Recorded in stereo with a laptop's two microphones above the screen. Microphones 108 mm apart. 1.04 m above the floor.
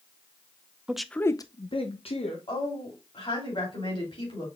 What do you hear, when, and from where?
0.9 s a man speaking: 10° right (ahead or behind), 0.6 m; by 2.4 s 65° left (ahead or behind), 1.1 m
2.5 s a woman speaking: 55° left (ahead or behind), 2.5 m